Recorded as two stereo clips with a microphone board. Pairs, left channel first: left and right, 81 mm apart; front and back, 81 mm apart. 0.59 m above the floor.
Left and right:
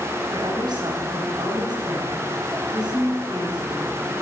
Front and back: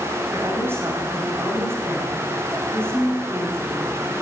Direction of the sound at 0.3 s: 120° right.